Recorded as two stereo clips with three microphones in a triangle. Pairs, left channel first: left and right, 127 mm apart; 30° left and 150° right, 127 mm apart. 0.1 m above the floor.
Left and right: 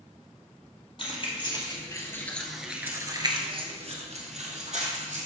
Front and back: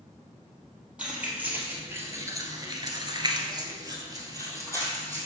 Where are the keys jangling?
130° left, 2 m; by 5.3 s 85° right, 3 m.